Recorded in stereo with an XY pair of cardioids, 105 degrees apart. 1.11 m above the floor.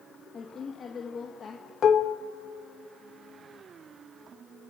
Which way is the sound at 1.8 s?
50° left.